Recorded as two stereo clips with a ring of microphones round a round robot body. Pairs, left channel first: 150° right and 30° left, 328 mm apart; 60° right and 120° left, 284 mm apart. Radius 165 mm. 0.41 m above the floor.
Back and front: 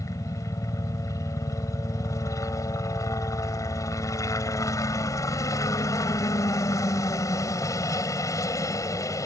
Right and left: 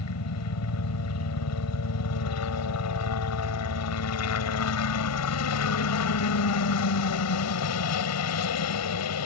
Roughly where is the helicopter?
Right.